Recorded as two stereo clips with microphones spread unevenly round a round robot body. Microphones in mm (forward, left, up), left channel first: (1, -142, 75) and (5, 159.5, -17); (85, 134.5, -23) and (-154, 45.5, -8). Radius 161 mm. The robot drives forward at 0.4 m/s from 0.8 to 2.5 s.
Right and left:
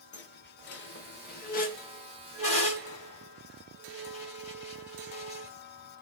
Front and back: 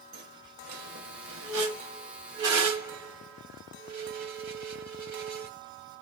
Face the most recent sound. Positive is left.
turn(degrees=-170)